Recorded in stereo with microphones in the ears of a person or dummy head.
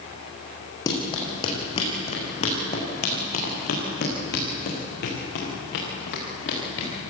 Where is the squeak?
No squeak in this recording.